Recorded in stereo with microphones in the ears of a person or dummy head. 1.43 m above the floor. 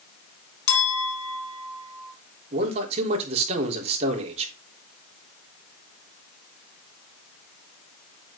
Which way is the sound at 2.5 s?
30° right (ahead or behind).